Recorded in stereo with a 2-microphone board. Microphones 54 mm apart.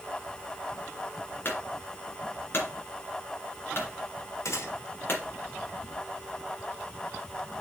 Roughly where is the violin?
I don't hear a violin.